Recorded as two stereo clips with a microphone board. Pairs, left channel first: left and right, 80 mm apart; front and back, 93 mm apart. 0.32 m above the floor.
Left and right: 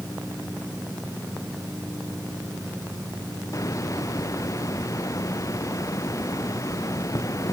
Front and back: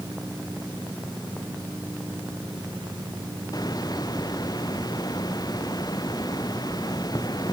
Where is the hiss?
45° left.